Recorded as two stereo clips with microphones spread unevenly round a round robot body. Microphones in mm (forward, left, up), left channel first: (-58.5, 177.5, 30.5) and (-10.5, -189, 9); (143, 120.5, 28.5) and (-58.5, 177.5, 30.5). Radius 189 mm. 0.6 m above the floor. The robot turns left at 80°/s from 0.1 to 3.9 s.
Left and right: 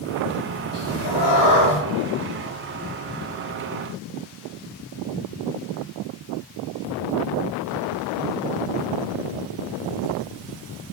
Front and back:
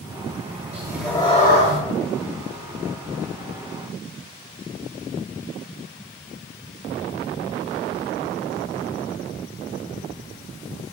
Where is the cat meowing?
100° left, 0.7 m; by 1.8 s 10° left, 0.7 m.